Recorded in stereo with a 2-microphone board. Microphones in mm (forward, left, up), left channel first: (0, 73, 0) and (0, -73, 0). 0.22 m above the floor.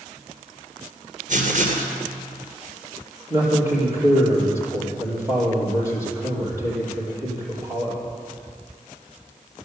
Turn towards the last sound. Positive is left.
turn(degrees=-15)  # may be behind; listen again after turning